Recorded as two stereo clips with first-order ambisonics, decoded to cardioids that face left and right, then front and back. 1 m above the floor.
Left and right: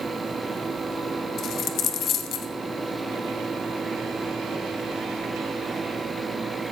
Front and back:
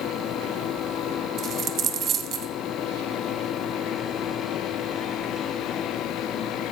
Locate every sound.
1.4 s a dropped coin: 130° left, 0.9 m